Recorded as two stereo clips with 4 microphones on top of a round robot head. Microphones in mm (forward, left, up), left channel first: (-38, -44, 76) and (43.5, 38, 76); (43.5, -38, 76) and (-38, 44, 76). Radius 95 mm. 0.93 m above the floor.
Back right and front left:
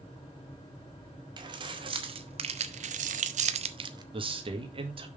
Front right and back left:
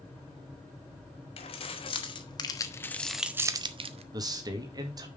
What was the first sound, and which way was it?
Keys jangling, 5° right.